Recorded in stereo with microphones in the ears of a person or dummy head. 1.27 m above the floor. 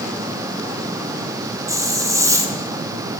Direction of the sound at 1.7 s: 25° right (ahead or behind).